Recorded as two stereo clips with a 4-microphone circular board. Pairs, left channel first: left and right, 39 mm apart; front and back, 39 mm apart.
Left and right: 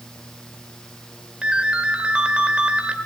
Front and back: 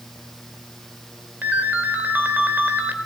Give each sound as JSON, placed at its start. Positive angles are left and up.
{"t": 1.4, "sound": "a ringtone", "azimuth_deg": -150, "distance_m": 1.9}